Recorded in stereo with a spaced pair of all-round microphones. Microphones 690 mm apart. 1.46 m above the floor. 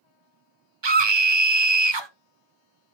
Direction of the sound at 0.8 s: 40° right (ahead or behind).